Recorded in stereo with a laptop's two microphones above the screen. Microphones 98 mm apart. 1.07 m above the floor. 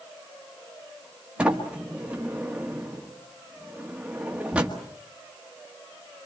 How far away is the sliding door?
About 1.5 m.